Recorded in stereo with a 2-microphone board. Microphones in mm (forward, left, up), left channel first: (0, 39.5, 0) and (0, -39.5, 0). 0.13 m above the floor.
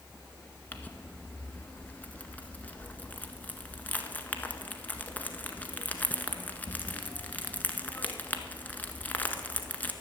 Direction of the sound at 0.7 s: 20° left (ahead or behind).